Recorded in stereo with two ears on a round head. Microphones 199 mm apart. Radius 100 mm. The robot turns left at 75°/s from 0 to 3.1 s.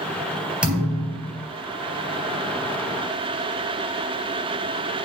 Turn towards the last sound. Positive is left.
turn(degrees=0)